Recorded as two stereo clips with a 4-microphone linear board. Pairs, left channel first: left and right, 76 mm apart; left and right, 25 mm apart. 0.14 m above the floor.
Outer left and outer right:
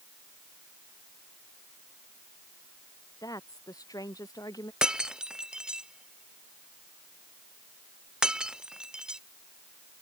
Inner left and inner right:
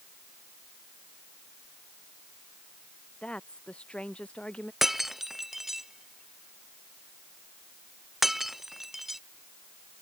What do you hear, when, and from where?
3.2 s a woman speaking: 55° left (ahead or behind)
4.8 s breaking glass: 10° right (ahead or behind)